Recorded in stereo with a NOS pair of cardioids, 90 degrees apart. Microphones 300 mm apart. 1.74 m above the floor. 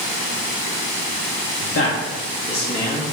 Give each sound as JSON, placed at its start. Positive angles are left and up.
{"t": 1.6, "sound": "a man speaking", "azimuth_deg": 60, "distance_m": 2.0}